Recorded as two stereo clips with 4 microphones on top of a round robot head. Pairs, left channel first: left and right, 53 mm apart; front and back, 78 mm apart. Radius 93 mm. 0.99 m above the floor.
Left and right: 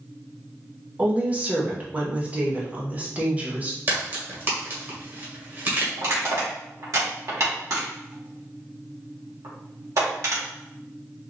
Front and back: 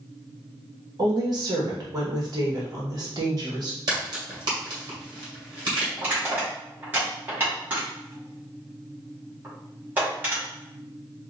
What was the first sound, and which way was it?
A woman speaking, 150° right.